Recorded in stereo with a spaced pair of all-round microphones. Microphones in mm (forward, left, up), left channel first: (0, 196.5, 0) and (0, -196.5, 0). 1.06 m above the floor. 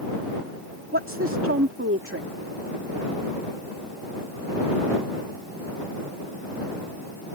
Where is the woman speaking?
35° right (ahead or behind).